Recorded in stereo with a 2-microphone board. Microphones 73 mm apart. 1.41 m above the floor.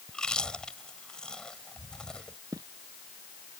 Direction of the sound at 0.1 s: 10° left (ahead or behind).